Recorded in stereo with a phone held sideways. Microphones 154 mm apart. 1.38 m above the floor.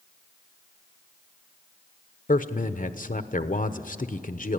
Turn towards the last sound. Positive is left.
turn(degrees=60)  # may be behind; listen again after turning